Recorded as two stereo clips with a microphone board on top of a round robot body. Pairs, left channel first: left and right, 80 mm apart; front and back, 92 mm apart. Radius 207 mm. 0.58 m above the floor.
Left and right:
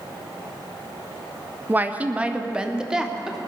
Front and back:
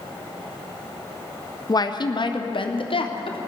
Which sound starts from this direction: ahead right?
A woman speaking, at 1.7 s.